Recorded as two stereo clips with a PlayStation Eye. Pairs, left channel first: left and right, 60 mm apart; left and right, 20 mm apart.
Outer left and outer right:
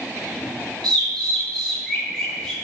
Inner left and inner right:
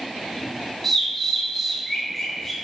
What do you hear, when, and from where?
0.8 s a bird: 15° left (ahead or behind), 1.7 m